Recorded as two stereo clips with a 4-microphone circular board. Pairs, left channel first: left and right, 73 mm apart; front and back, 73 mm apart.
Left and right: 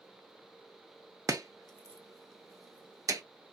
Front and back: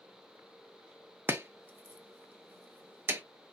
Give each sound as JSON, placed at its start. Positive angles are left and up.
{"t": 1.3, "sound": "chopping", "azimuth_deg": -120, "distance_m": 0.6}